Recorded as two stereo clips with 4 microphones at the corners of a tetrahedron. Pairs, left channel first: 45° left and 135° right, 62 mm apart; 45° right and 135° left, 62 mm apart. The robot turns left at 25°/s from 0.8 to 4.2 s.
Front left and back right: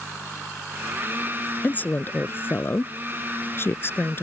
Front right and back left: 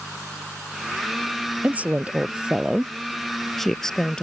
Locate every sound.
1.6 s a woman speaking: 90° left; by 4.2 s 25° left